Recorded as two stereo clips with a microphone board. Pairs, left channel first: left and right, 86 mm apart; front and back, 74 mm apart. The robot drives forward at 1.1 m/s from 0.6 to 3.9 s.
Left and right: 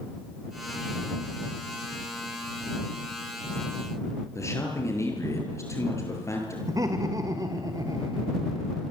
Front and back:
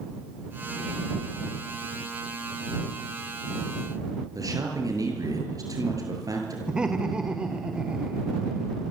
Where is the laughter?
105° right, 1.8 m.